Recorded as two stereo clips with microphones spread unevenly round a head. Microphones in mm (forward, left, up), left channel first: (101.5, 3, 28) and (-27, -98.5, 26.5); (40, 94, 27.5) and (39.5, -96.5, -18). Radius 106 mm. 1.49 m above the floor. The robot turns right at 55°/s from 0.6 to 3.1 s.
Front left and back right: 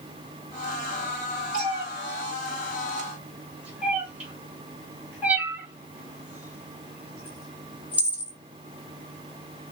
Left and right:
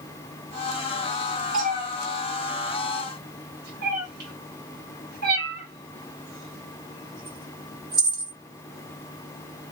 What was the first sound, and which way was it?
A cat meowing, 150° right.